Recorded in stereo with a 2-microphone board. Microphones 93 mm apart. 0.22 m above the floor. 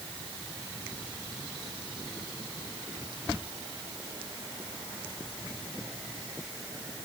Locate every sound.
Only background noise.